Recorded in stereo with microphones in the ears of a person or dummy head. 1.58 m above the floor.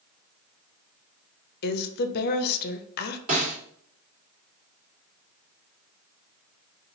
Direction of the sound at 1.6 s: 55° left (ahead or behind).